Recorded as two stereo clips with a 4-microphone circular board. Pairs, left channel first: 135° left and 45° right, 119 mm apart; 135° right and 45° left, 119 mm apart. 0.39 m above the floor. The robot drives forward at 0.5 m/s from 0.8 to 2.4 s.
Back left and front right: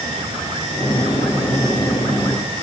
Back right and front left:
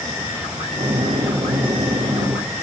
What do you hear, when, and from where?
Only background noise.